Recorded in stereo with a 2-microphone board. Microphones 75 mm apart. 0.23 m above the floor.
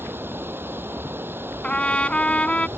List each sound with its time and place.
0.0 s running water: 30° right (ahead or behind)
1.6 s a trumpet: 15° left (ahead or behind)